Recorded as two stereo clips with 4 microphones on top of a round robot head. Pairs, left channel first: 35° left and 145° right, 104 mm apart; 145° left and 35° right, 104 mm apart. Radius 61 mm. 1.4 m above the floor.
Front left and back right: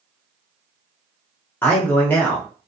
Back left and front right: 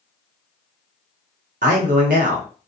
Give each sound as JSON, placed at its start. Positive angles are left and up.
{"t": 1.6, "sound": "a man speaking", "azimuth_deg": -40, "distance_m": 0.8}